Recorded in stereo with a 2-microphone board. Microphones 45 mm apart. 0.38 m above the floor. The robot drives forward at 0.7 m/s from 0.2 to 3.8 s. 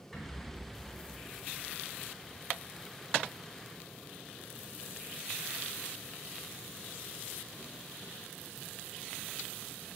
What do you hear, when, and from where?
0.1 s a rattle: centre (ahead or behind), 3.5 m